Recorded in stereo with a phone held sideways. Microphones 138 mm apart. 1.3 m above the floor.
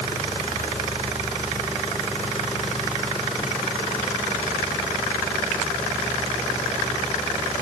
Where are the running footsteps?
I don't hear running footsteps.